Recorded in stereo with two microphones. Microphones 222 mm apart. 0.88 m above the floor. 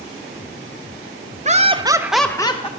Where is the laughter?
35° right (ahead or behind), 0.7 m; by 2.7 s 25° left (ahead or behind), 0.6 m.